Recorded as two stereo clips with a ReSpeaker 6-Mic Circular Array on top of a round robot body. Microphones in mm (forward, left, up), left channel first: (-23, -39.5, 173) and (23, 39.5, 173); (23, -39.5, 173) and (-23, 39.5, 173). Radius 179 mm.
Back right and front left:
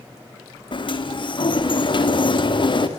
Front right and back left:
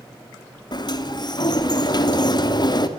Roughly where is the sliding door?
Right.